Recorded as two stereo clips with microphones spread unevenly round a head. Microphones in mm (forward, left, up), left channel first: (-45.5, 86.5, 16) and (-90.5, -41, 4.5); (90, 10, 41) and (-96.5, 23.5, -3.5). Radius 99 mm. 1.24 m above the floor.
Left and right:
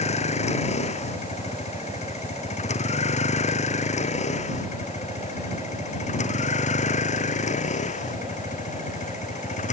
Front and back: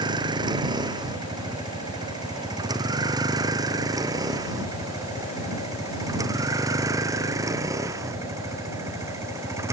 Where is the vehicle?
110° left; by 9.7 s 100° left.